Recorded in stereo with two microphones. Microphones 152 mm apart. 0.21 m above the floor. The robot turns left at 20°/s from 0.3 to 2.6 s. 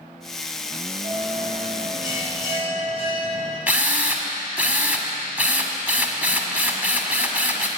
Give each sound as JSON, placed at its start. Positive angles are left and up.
{"t": 1.0, "sound": "a bell", "azimuth_deg": -70, "distance_m": 6.0}
{"t": 3.7, "sound": "a drill", "side_deg": -10, "distance_m": 1.6}